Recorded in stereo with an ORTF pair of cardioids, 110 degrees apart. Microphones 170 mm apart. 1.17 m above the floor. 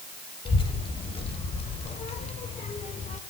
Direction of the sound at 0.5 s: 30° left.